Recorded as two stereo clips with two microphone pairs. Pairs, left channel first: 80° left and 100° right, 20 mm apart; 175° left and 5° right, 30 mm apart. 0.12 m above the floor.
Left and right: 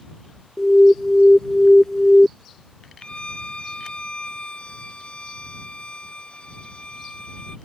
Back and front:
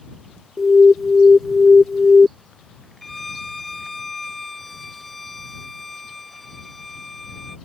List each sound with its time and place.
0.6 s an alarm: 100° left
3.0 s a violin: 95° left